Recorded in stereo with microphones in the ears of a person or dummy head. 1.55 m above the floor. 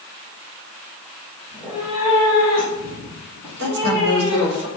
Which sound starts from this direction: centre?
A cat meowing, at 1.5 s.